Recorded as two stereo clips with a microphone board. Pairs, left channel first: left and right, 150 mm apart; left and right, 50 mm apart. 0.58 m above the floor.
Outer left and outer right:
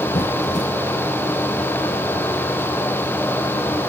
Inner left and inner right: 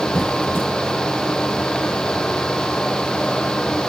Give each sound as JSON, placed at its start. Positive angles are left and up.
{"t": 0.1, "sound": "a squeak", "side_deg": 50, "distance_m": 1.7}